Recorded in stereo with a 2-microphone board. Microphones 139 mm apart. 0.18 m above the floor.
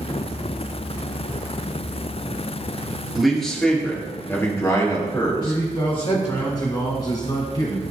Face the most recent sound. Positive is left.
turn(degrees=30)  # may be behind; listen again after turning